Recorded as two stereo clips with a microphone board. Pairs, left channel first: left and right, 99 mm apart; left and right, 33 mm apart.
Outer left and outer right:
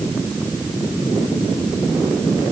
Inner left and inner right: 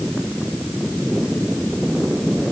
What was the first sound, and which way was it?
Only background noise.